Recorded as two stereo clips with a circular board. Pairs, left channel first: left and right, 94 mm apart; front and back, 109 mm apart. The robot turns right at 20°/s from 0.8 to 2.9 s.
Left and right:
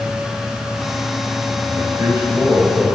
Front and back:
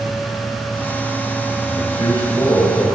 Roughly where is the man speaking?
Ahead right.